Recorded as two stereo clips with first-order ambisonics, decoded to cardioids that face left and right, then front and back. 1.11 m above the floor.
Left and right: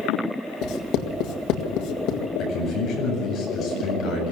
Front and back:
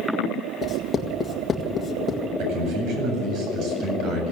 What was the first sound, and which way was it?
Writing, 70° left.